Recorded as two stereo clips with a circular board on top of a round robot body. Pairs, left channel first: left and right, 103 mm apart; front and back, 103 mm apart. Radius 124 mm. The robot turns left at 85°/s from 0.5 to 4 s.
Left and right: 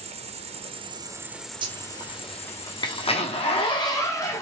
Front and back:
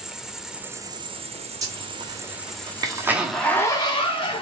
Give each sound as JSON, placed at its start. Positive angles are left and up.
{"t": 0.0, "sound": "an insect", "azimuth_deg": -95, "distance_m": 1.0}
{"t": 1.6, "sound": "a zipper", "azimuth_deg": -125, "distance_m": 1.4}